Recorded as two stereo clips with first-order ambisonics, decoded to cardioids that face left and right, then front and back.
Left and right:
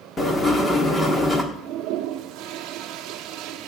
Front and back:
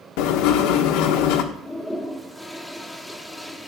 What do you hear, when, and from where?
0.2 s writing: 10° left, 1.3 m
1.5 s a toilet flushing: 85° right, 0.8 m